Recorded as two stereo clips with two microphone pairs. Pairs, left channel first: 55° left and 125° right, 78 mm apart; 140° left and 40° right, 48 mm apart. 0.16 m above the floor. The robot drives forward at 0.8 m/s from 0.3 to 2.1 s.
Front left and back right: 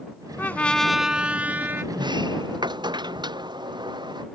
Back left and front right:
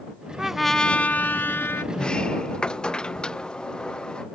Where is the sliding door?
145° right.